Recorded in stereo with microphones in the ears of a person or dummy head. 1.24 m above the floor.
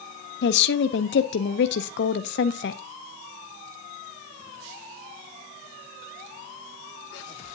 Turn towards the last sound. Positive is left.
turn(degrees=60)  # may be behind; listen again after turning